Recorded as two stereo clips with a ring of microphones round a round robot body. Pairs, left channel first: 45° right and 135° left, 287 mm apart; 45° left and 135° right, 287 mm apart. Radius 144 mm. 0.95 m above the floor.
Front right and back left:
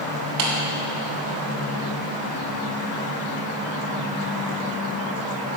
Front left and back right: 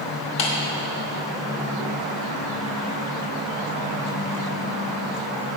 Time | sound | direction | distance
0.4 | a clap | 90° left | 3 m